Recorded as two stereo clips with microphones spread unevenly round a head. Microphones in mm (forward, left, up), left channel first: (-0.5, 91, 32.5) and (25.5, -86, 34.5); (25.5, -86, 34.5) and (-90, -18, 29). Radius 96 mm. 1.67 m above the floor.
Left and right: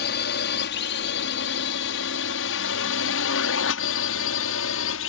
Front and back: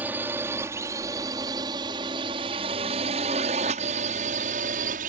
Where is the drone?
70° left; by 5.1 s 105° left.